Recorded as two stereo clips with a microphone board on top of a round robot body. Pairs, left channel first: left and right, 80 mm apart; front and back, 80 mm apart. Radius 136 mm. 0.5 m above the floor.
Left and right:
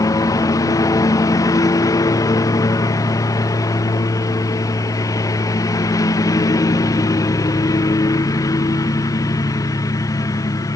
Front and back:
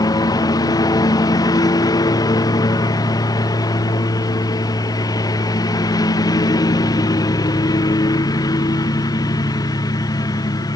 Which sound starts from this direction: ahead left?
A lawn mower, at 0.0 s.